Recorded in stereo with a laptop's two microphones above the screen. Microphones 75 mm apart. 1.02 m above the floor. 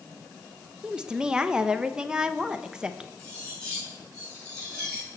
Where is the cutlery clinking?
10° left (ahead or behind), 6.5 m.